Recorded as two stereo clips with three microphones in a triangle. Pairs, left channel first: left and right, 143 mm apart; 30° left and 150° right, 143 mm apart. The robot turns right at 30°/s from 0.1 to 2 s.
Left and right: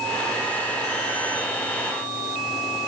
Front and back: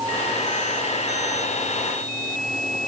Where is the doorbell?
I don't hear a doorbell.